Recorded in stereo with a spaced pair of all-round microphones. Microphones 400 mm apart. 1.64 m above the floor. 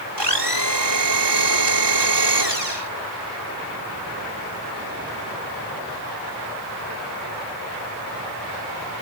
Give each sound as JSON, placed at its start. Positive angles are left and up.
{"t": 0.2, "sound": "a blender", "side_deg": -85}